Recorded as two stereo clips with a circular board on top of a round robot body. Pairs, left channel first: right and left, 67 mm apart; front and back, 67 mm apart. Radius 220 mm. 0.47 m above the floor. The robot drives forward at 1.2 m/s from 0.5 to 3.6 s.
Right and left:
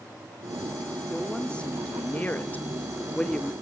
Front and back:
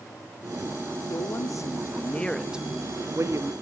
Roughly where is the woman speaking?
Ahead.